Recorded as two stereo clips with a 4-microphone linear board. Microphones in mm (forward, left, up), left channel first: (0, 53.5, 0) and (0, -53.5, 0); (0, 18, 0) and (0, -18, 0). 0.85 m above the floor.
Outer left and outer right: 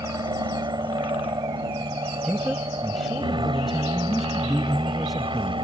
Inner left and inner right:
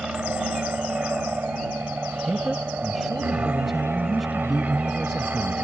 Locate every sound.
0.0 s an aircraft: 40° right (ahead or behind); by 5.6 s 50° right (ahead or behind)
2.2 s a man speaking: centre (ahead or behind)